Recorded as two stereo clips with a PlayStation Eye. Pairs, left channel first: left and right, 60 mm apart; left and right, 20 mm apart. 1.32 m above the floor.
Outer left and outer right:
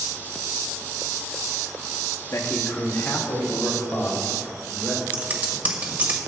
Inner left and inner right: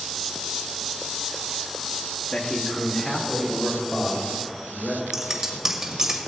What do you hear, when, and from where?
2.3 s a man speaking: 50° left (ahead or behind), 1.2 m; by 5.0 s 35° left (ahead or behind), 5 m
5.1 s scissors: 25° right (ahead or behind), 1.5 m